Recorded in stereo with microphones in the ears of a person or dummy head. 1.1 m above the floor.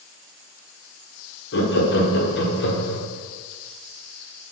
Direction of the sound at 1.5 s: 50° left (ahead or behind).